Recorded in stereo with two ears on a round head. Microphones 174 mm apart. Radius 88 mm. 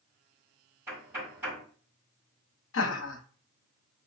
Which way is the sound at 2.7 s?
75° left (ahead or behind).